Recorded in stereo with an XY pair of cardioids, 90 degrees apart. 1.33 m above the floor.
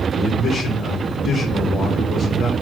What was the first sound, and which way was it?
A man speaking, 65° left.